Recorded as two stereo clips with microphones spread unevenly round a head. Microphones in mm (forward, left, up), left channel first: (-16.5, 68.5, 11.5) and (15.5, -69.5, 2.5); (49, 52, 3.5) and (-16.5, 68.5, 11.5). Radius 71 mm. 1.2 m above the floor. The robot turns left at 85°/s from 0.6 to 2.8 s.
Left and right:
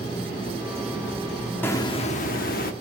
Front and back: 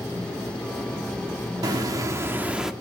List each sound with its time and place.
1.6 s a hiss: 175° left, 1.1 m; by 2.7 s 85° left, 1.1 m